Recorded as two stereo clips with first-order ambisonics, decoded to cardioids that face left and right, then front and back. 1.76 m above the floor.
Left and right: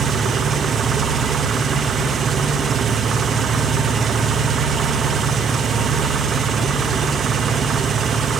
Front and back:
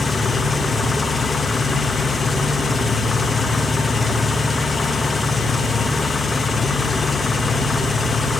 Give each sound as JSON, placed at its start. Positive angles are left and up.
{"t": 0.0, "sound": "an engine running", "azimuth_deg": -60, "distance_m": 1.1}